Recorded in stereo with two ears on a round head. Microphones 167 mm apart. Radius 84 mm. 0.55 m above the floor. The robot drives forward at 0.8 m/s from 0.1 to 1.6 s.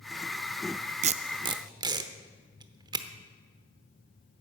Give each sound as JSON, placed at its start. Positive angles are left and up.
{"t": 1.0, "sound": "tape being pulled", "side_deg": -40, "distance_m": 0.5}